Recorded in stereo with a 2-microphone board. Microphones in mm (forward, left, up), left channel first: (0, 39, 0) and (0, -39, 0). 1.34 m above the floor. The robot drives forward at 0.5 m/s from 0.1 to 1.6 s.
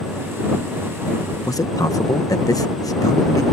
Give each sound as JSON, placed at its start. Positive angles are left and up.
{"t": 1.5, "sound": "a man speaking", "side_deg": 45}